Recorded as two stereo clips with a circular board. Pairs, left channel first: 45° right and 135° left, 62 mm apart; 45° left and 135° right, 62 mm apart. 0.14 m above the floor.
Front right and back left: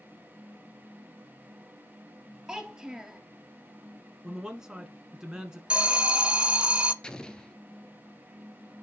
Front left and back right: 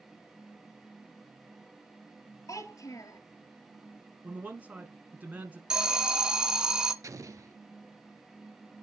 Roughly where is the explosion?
Behind right.